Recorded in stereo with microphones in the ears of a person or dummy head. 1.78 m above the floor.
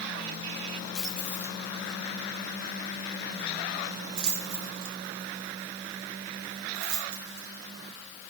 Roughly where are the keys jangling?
Centre.